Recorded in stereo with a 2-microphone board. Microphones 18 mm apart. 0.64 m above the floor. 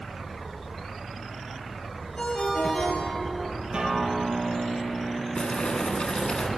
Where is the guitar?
60° right (ahead or behind), 5.5 m.